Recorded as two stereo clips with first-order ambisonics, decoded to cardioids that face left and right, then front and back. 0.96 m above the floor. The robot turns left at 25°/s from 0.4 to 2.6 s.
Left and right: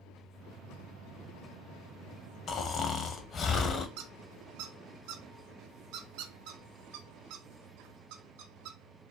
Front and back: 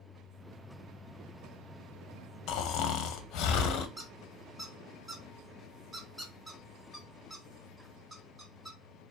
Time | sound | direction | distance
2.5 | snoring | 35° left | 0.8 m
4.0 | a squeak | 105° right | 0.9 m